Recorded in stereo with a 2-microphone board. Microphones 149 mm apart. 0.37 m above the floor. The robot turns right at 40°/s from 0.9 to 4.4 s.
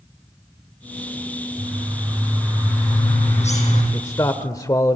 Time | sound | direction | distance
1.6 | a bird | 25° right | 7 m
3.9 | a man speaking | 20° left (ahead or behind) | 0.9 m